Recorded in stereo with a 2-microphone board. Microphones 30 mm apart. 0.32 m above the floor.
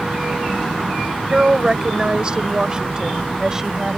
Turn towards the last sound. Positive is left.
turn(degrees=-20)  # may be behind; listen again after turning